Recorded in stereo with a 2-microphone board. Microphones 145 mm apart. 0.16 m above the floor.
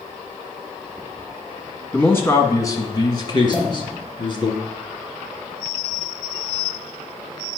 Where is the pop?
50° right (ahead or behind), 3.5 m.